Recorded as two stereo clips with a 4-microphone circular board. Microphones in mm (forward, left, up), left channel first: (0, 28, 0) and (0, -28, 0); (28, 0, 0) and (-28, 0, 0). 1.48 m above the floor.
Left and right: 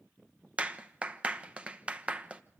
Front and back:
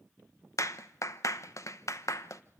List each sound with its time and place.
0.6 s a clap: 20° right, 1.1 m